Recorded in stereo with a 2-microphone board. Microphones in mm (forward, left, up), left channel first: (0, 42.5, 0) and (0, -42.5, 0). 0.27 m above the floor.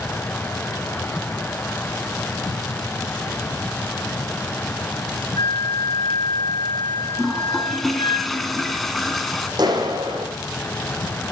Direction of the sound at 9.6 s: 55° right (ahead or behind).